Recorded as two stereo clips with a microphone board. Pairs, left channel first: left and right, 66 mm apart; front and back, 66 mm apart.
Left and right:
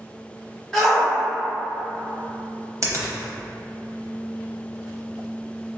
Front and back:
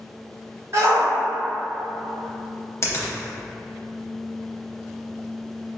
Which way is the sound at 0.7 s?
170° left.